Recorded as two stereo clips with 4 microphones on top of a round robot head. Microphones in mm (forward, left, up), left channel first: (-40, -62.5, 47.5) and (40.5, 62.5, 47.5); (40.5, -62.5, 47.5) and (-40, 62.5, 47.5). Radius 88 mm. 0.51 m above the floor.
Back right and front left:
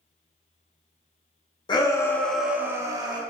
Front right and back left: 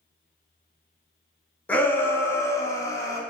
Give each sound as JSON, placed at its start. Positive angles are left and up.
{"t": 1.7, "sound": "a shout", "azimuth_deg": -130, "distance_m": 0.8}